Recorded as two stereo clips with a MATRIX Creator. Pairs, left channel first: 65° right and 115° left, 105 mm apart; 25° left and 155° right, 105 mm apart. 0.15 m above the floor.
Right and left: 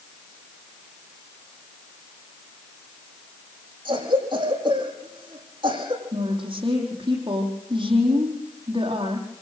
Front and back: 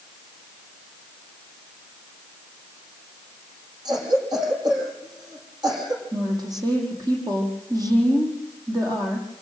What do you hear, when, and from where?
3.9 s a cough: 155° left, 6.5 m
6.1 s a woman speaking: 150° left, 6 m